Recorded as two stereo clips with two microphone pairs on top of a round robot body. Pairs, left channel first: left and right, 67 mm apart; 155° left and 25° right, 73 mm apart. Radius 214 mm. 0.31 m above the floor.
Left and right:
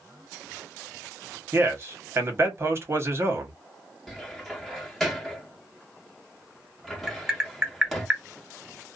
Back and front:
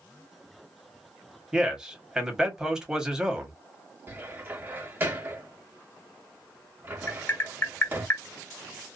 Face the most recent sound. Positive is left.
turn(degrees=-165)